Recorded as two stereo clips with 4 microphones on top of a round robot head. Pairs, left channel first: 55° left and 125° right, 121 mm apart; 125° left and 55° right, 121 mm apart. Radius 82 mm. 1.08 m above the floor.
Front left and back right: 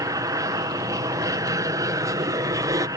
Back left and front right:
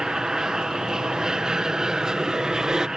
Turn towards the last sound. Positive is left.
turn(degrees=-135)